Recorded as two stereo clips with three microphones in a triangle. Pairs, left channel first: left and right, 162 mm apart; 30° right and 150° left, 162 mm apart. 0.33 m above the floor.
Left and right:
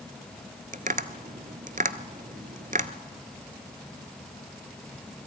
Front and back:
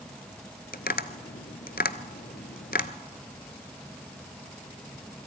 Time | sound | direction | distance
0.7 | tapping | 50° right | 1.0 m